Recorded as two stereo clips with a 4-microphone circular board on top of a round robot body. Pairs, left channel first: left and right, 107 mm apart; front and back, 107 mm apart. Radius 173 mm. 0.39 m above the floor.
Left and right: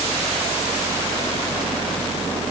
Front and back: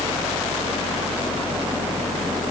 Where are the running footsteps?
No running footsteps in this recording.